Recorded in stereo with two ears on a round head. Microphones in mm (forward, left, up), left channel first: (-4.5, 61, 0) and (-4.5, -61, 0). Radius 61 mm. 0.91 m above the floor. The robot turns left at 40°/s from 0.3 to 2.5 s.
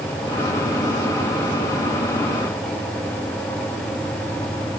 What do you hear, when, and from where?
Only background noise.